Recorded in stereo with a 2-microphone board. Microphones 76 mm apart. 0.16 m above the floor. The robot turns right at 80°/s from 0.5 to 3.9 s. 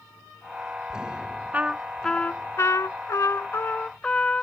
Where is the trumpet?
30° right; by 4.4 s 160° left.